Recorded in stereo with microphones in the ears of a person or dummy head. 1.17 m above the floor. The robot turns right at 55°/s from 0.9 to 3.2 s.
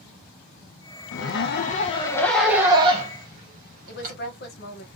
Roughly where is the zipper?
Left.